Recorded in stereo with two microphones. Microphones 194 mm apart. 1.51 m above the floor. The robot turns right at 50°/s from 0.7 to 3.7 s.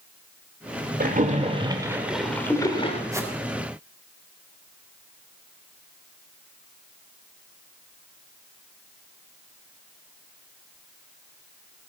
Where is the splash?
60° right, 1.9 m; by 3.0 s 40° left, 1.9 m.